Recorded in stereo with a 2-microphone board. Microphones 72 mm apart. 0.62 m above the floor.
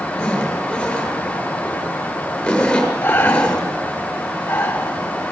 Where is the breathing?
30° left (ahead or behind), 3.5 m.